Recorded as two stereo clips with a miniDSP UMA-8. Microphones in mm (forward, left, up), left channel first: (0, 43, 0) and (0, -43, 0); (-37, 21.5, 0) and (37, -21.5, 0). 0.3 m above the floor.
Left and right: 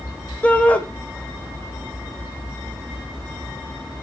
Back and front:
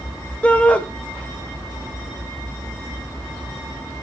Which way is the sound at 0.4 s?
115° left.